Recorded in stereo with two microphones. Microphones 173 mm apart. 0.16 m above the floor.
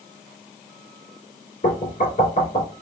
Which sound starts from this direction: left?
Knocking, at 1.6 s.